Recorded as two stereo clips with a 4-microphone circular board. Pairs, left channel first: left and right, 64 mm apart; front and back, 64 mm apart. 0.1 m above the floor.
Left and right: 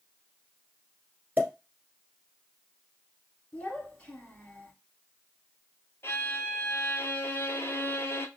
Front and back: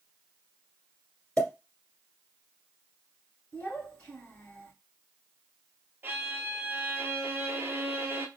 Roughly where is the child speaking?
Ahead left.